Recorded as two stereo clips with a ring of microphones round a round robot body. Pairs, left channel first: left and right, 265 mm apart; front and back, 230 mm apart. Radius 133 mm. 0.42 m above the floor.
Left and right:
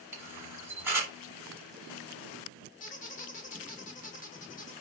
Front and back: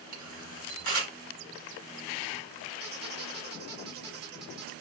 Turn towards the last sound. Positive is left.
turn(degrees=145)